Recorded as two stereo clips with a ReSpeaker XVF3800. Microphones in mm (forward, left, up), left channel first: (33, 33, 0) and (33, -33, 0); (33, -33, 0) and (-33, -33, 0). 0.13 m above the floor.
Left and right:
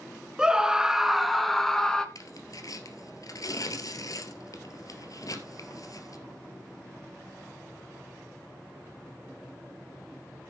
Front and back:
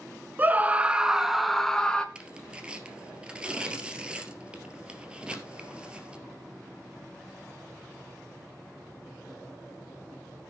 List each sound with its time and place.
0.4 s a scream: 155° right, 1.1 m; by 2.0 s 35° left, 1.1 m
2.1 s tearing paper: 110° left, 1.9 m